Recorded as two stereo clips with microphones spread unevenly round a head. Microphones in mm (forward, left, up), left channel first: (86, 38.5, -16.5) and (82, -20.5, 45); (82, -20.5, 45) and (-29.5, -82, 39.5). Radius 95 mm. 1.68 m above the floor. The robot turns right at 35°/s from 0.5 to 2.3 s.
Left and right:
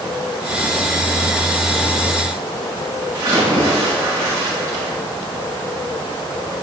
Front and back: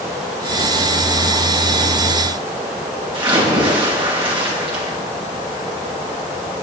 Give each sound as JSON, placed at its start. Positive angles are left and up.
{"t": 3.1, "sound": "a splash", "azimuth_deg": -110, "distance_m": 6.0}